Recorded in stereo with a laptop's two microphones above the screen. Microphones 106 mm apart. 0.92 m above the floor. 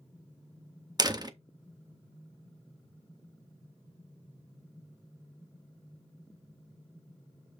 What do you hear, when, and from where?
1.0 s a door slam: 35° right (ahead or behind), 0.5 m